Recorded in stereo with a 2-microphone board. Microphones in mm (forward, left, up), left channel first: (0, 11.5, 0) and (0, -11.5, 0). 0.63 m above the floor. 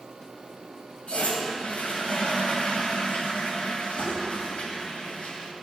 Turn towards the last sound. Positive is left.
turn(degrees=75)  # may be behind; listen again after turning